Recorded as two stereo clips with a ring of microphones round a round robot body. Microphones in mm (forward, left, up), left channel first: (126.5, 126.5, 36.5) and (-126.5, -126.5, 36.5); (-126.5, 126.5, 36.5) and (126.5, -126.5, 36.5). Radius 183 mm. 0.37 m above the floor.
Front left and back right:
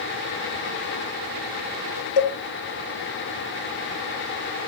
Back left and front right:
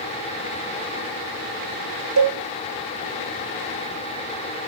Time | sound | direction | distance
2.2 | a cowbell | 5° left | 1.1 m